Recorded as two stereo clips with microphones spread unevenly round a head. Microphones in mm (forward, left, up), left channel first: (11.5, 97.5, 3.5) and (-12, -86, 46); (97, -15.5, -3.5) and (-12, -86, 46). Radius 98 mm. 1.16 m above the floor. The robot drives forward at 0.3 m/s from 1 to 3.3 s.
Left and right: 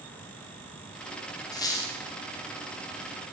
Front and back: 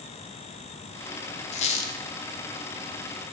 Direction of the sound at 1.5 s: 5° left.